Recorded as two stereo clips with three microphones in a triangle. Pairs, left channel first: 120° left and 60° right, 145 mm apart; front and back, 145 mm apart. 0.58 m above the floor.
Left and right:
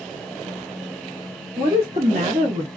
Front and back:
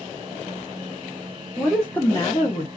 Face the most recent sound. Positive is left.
turn(degrees=-40)